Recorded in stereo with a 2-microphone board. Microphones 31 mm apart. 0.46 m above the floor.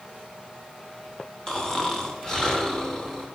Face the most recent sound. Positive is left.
turn(degrees=20)  # may be behind; listen again after turning